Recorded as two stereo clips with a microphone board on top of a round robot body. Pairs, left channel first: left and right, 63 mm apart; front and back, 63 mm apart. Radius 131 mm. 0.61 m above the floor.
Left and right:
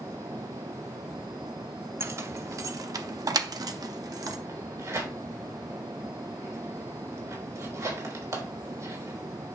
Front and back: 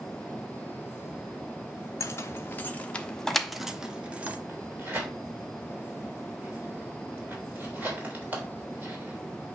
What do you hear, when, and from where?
2.0 s keys jangling: 45° right, 1.1 m; by 4.4 s 115° right, 1.2 m
4.5 s tearing paper: 115° right, 3.5 m